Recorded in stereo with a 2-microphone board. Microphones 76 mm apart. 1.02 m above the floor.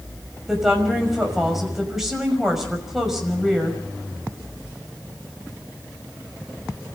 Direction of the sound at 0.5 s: 5° right (ahead or behind).